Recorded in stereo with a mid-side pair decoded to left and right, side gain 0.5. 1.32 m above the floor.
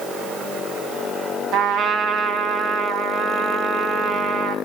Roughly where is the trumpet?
Right.